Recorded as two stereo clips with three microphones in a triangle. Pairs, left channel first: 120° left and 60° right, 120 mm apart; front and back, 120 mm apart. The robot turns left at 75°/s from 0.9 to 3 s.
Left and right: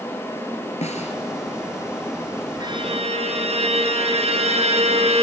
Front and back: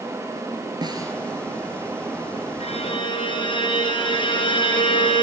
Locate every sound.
0.8 s a snare drum: 130° left, 1.9 m; by 1.1 s 110° left, 1.9 m
2.6 s a violin: 10° right, 2.5 m; by 5.2 s 40° right, 2.5 m